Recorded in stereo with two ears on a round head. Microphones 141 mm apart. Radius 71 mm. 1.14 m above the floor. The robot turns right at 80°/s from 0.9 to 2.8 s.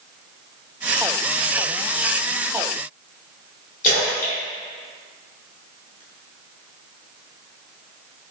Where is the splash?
50° left (ahead or behind), 1.0 m.